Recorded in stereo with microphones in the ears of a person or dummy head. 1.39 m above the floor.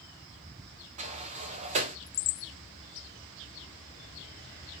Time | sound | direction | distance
1.0 | a sliding door | 35° right (ahead or behind) | 0.5 m